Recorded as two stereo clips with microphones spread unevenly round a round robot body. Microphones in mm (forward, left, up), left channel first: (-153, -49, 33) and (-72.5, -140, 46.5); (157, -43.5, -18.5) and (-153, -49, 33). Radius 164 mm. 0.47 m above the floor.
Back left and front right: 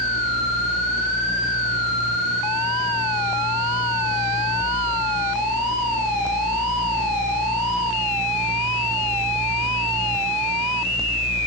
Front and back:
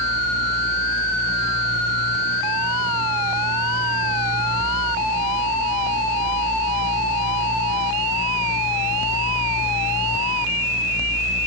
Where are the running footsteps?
No running footsteps in this recording.